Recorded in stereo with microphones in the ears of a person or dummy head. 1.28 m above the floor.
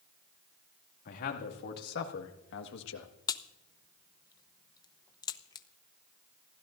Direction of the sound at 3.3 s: 20° left (ahead or behind).